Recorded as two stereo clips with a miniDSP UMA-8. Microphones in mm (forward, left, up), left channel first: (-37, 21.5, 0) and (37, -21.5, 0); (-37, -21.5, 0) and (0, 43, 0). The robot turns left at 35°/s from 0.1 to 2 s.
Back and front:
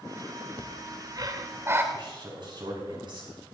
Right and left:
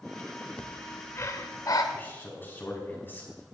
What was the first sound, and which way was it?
Breathing, 50° right.